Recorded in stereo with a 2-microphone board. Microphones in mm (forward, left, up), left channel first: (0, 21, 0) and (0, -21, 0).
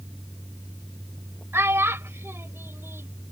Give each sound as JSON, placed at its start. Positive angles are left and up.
{"t": 1.5, "sound": "a child speaking", "side_deg": -65}